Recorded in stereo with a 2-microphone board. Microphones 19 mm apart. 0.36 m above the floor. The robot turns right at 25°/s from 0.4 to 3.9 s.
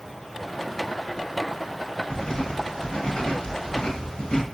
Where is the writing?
65° left, 1.1 m; by 4.5 s 110° left, 1.1 m.